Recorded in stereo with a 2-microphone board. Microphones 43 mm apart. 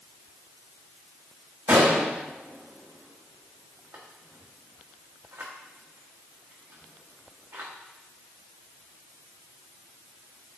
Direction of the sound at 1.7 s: 85° right.